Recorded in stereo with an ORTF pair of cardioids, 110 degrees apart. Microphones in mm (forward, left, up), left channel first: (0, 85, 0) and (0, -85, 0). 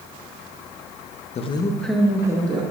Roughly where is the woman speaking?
Ahead left.